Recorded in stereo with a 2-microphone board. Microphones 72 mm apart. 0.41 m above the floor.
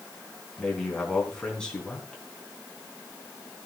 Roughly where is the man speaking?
Centre.